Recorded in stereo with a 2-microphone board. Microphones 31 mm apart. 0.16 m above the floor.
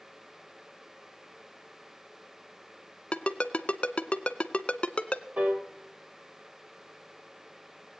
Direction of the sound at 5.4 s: 50° right (ahead or behind).